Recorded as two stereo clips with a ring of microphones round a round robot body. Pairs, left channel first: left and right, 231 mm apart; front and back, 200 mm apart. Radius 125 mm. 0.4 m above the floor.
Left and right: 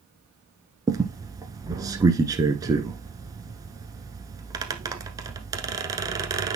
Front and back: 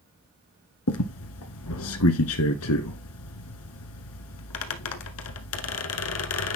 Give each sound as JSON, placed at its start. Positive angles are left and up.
{"t": 0.9, "sound": "a squeak", "azimuth_deg": -15, "distance_m": 1.0}